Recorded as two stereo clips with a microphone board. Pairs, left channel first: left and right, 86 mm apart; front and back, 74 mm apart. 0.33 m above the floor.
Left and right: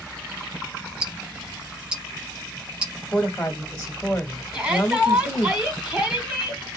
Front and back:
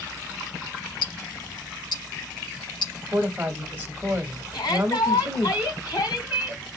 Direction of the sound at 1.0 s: 10° right.